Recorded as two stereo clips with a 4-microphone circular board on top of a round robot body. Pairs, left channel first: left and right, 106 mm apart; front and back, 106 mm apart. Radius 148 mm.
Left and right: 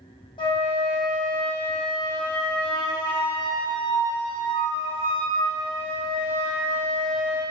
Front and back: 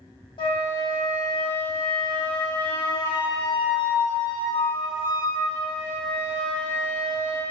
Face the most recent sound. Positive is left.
turn(degrees=45)